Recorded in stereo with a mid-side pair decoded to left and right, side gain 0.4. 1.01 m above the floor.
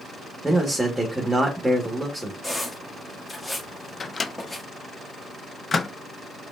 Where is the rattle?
I don't hear a rattle.